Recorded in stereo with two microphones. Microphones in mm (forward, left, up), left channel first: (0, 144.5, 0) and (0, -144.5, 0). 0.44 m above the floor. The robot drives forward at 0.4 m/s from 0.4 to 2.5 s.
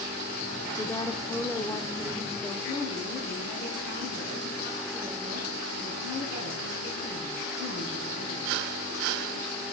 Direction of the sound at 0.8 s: 10° left (ahead or behind).